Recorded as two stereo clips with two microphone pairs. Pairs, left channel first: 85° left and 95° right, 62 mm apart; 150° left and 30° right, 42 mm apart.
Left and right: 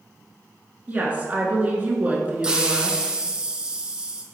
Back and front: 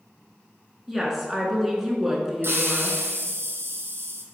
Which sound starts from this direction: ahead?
A hiss, at 2.4 s.